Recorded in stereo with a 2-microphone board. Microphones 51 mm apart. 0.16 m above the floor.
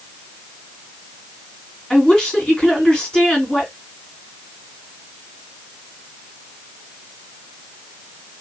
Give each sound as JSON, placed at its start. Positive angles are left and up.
{"t": 1.9, "sound": "a woman speaking", "side_deg": 10, "distance_m": 1.7}